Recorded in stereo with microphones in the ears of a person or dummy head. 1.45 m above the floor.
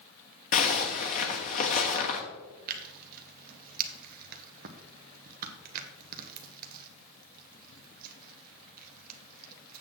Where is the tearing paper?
45° right (ahead or behind), 0.9 m.